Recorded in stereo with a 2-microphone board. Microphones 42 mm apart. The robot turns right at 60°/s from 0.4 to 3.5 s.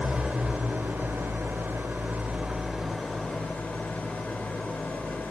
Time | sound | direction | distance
0.0 | an engine running | 150° right | 3.5 m